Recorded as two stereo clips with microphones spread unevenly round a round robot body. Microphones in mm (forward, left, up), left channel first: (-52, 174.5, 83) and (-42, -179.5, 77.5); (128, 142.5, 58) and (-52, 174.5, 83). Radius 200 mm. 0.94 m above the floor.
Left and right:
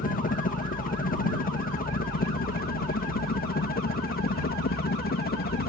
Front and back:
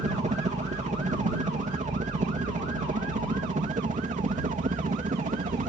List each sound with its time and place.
0.0 s a helicopter: 145° left